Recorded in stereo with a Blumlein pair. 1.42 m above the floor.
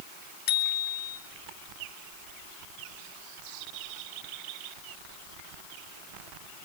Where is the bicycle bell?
50° left, 3.5 m.